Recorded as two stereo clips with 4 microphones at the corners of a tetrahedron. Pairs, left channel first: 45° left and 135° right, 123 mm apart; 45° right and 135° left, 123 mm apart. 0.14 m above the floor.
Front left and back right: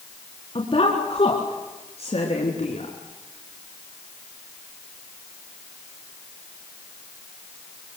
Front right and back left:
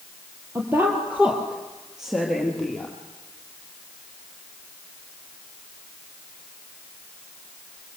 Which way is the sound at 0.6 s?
70° left.